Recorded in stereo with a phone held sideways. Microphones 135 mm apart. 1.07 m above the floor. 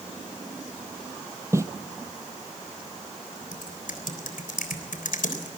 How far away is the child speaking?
I don't hear a child speaking.